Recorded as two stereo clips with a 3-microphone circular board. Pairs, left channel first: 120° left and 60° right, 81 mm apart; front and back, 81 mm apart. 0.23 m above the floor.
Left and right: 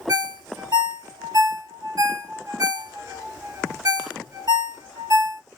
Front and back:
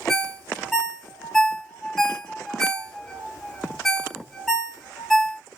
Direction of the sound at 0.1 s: 85° right.